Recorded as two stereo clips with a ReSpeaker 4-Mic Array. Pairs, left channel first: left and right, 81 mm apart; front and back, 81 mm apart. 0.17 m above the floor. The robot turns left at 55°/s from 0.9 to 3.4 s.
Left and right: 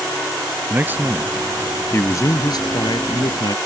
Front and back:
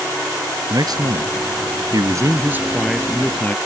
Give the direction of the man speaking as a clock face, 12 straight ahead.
5 o'clock.